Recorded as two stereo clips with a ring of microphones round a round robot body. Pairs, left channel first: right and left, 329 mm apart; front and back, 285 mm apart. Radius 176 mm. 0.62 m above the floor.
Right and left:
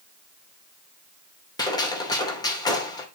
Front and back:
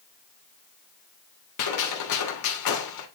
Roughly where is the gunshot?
Ahead.